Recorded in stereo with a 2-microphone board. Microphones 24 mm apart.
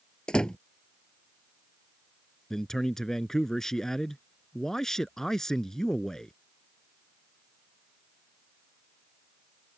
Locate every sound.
0.3 s a door slam: 40° left (ahead or behind)
2.5 s a man speaking: 20° left (ahead or behind)